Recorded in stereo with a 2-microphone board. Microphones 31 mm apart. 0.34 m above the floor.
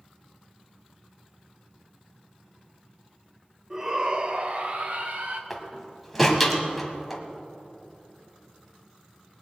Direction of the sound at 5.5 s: 5° right (ahead or behind).